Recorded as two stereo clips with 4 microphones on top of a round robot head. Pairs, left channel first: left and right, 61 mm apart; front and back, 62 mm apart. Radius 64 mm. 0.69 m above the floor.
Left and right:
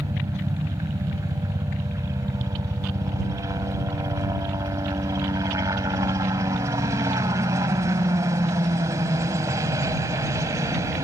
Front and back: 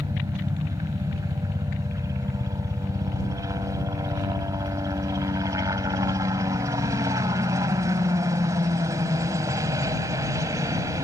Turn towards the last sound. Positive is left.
turn(degrees=-135)